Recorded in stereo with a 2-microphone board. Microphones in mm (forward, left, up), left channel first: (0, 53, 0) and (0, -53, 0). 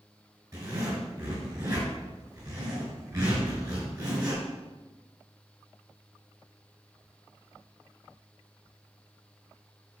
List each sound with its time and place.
0.5 s a zipper: 35° right (ahead or behind), 5 m